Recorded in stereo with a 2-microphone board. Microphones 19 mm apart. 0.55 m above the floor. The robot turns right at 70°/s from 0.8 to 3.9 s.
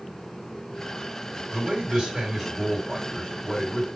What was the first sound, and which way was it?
A man speaking, 90° right.